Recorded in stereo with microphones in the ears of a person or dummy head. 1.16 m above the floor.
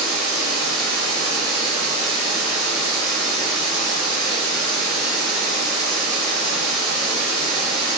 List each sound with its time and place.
0.0 s running water: centre (ahead or behind), 1.5 m